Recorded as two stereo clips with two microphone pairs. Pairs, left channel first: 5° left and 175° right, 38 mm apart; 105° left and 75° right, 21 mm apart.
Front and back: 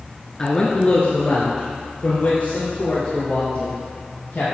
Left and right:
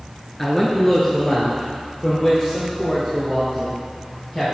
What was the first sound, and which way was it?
A man speaking, 40° left.